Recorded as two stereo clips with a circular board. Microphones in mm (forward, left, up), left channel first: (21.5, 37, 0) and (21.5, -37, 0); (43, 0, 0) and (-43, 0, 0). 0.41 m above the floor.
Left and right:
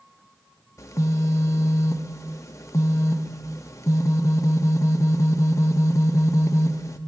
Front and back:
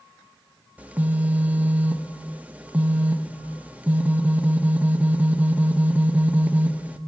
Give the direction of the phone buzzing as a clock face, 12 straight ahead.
8 o'clock.